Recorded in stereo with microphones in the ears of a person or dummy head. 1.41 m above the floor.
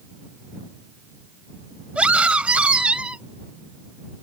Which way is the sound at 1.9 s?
5° right (ahead or behind).